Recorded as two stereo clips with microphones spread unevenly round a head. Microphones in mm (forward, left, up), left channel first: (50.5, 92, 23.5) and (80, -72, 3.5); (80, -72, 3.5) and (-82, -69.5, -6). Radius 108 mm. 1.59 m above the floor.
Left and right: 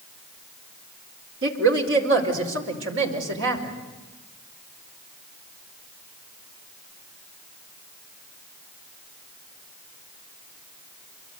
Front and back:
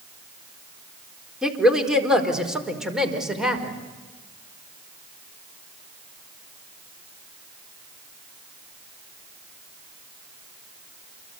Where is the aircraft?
No aircraft in this recording.